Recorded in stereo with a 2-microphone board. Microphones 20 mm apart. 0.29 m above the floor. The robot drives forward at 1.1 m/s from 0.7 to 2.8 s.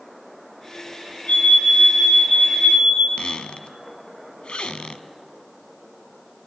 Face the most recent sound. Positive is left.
turn(degrees=65)  # may be behind; listen again after turning